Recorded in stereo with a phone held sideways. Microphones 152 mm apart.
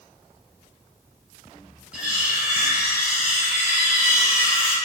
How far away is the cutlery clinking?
About 1.2 m.